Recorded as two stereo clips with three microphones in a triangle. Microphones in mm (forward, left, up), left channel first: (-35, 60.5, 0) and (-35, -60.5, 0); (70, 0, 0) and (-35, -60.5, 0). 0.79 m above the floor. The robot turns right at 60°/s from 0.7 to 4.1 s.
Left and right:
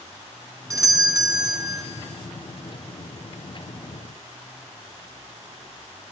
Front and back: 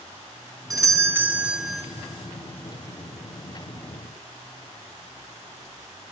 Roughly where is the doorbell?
Behind right.